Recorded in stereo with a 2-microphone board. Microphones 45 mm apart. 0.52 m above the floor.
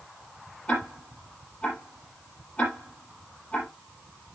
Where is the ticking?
25° left (ahead or behind), 6 m.